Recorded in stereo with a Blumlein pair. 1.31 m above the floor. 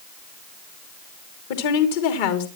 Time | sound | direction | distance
1.5 | a woman speaking | 50° left | 2.5 m